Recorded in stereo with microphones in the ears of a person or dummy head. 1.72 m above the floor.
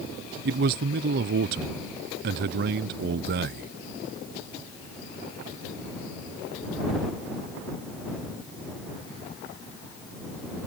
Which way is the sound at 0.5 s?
55° right (ahead or behind).